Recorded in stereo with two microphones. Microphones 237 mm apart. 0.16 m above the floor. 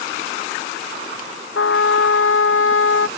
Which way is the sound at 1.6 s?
70° left (ahead or behind).